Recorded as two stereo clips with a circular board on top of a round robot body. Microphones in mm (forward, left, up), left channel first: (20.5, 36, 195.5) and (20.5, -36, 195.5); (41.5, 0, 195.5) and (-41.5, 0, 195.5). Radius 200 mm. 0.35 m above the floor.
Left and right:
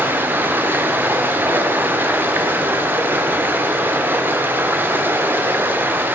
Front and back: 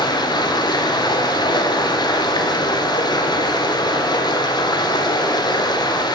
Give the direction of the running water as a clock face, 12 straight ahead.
1 o'clock.